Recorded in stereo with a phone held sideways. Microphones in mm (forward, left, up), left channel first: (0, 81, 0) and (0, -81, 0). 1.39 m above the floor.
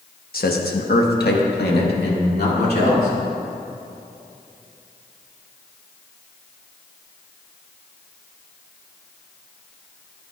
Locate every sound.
0.3 s a man speaking: 65° left (ahead or behind), 1.1 m; by 3.1 s 80° left, 3 m